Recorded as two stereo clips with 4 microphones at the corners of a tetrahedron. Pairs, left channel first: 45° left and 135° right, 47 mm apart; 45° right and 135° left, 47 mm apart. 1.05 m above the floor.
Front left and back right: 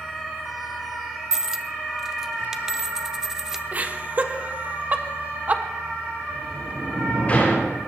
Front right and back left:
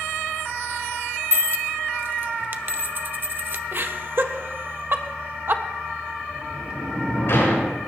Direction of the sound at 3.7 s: 170° left.